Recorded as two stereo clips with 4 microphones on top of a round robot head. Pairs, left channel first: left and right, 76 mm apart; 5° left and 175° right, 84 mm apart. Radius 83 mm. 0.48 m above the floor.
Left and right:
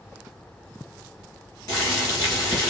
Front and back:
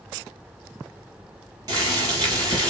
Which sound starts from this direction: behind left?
Boiling, at 1.7 s.